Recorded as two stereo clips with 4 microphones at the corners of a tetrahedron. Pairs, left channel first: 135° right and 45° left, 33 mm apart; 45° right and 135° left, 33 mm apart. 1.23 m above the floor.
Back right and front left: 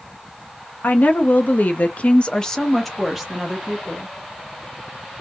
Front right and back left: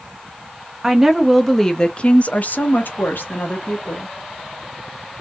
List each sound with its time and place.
0.8 s a woman speaking: 150° right, 0.9 m; by 4.1 s 30° right, 1.3 m